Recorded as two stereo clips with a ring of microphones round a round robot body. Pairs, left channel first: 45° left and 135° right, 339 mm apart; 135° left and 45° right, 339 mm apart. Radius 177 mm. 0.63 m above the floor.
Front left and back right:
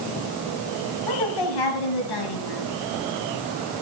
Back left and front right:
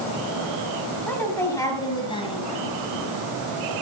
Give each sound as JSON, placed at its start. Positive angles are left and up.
{"t": 1.1, "sound": "a woman speaking", "azimuth_deg": 50, "distance_m": 4.5}